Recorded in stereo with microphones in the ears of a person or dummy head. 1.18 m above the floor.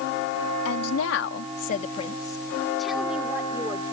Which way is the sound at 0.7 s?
85° left.